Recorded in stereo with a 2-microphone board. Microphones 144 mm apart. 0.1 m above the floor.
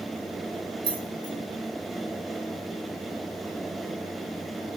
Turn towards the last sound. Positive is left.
turn(degrees=-35)  # may be behind; listen again after turning